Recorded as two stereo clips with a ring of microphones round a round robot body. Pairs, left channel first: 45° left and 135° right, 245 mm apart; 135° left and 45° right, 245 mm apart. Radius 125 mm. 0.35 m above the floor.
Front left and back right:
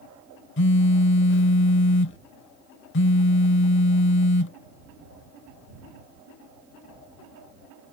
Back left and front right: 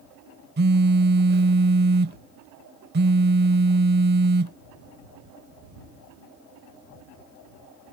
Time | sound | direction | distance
0.6 | a phone buzzing | 5° left | ?